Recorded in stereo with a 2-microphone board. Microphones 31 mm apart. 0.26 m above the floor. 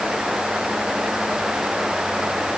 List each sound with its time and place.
Only background noise.